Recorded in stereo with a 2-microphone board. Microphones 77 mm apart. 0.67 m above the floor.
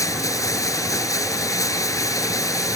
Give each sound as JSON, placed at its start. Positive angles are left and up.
{"t": 0.0, "sound": "running water", "side_deg": 50}